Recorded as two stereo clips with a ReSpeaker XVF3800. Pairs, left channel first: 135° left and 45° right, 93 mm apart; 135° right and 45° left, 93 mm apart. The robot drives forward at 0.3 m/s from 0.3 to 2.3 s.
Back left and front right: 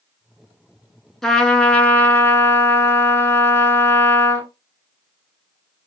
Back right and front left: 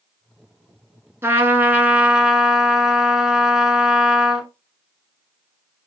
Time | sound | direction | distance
1.2 | a trumpet | 50° left | 0.7 m